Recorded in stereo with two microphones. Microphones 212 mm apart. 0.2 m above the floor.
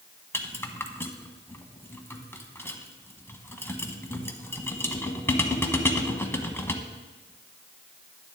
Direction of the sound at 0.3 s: 10° left (ahead or behind).